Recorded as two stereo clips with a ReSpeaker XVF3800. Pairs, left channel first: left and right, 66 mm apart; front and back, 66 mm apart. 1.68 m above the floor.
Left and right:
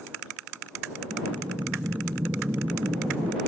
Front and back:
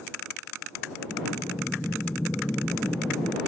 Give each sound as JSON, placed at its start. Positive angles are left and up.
{"t": 1.1, "sound": "breathing", "azimuth_deg": -65}